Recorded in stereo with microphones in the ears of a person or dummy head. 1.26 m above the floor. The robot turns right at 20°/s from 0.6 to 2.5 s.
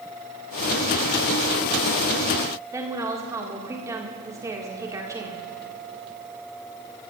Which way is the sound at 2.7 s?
10° right (ahead or behind).